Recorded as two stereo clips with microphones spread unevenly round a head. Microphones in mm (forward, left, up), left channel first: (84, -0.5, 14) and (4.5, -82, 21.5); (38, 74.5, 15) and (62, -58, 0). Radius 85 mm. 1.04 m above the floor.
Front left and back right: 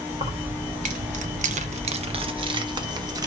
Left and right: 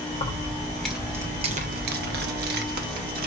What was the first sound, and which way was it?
Keys jangling, 165° left.